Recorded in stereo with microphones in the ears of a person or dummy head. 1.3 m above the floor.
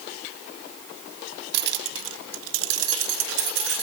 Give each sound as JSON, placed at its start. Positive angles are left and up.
{"t": 1.5, "sound": "keys jangling", "side_deg": -65, "distance_m": 0.6}